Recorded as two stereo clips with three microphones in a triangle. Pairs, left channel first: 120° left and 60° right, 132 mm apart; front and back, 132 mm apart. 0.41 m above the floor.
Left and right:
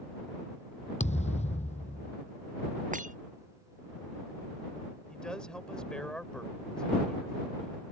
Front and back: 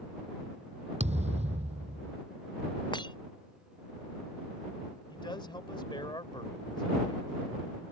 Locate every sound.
1.0 s a thud: 150° left
2.9 s breaking glass: 55° right
5.1 s a man speaking: 40° left